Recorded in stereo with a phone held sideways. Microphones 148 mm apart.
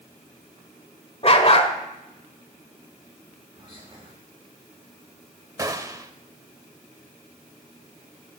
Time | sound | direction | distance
1.2 | a dog barking | 45° left (ahead or behind) | 1.4 m
3.5 | whispering | 35° right (ahead or behind) | 2.5 m
5.6 | a gunshot | 25° right (ahead or behind) | 0.8 m